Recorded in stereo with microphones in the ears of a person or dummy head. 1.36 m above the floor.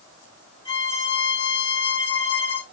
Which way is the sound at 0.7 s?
30° left (ahead or behind).